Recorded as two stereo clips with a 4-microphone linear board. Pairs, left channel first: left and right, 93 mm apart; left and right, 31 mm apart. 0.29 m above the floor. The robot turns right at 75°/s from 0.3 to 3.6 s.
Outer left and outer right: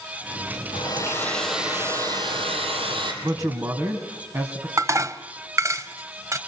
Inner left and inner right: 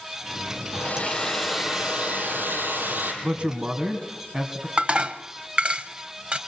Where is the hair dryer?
125° left, 4.5 m; by 3.1 s 55° right, 4.5 m.